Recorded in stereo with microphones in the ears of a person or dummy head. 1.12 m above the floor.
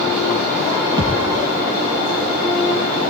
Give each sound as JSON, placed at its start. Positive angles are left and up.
{"t": 1.0, "sound": "a thud", "side_deg": -30, "distance_m": 3.5}